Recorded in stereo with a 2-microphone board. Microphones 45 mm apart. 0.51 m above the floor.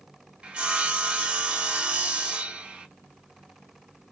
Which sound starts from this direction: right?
Sawing, at 0.4 s.